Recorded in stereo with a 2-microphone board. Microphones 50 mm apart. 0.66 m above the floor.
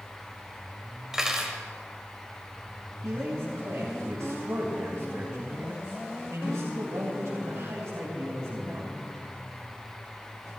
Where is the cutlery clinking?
10° right (ahead or behind), 1.8 m.